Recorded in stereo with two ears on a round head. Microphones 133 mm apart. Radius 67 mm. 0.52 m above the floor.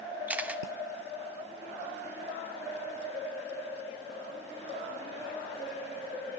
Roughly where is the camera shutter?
Centre.